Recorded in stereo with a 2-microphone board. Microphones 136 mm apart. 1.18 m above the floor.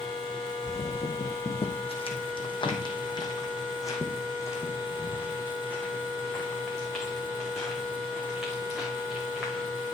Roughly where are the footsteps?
Left.